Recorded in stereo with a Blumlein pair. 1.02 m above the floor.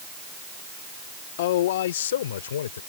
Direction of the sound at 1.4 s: 55° left.